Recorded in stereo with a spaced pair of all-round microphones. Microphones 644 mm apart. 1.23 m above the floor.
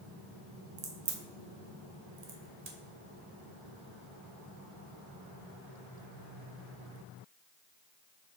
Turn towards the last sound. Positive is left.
turn(degrees=-75)  # may be behind; listen again after turning